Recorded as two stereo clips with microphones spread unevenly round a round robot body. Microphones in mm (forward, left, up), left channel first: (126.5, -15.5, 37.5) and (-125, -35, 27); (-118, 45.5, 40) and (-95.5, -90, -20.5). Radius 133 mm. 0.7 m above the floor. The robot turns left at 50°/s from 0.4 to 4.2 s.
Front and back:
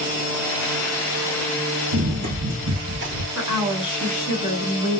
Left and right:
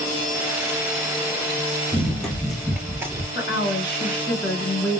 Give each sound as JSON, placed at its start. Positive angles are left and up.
{"t": 1.9, "sound": "running footsteps", "azimuth_deg": 175, "distance_m": 1.3}
{"t": 3.4, "sound": "a woman speaking", "azimuth_deg": 95, "distance_m": 2.5}